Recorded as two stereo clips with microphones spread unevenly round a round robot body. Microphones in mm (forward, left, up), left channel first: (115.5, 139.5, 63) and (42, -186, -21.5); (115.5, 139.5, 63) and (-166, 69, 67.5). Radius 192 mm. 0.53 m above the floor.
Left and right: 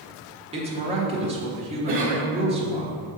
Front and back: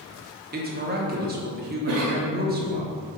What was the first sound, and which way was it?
A woman speaking, 135° right.